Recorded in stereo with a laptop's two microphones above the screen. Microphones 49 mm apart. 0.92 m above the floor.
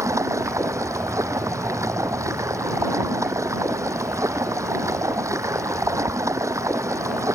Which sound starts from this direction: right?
Running water, at 0.0 s.